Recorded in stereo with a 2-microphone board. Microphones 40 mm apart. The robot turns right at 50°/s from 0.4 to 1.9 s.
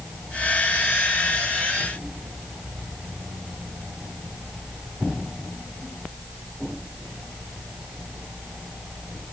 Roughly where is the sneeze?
No sneeze in this recording.